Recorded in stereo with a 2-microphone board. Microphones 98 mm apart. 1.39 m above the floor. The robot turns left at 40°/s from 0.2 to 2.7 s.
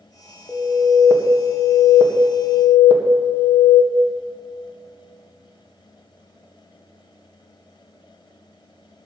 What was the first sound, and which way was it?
An alarm, 160° left.